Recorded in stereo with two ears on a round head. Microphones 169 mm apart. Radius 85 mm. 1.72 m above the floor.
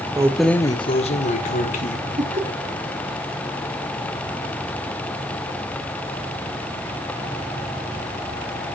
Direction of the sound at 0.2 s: 20° right (ahead or behind).